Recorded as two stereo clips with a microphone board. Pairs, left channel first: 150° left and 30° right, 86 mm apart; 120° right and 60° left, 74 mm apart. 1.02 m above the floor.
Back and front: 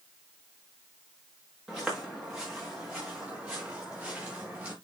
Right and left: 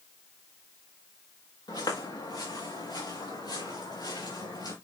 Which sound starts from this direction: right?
Footsteps, at 1.7 s.